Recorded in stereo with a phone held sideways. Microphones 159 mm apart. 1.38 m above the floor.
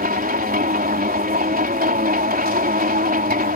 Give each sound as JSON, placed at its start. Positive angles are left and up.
{"t": 0.0, "sound": "a machine running", "side_deg": -70}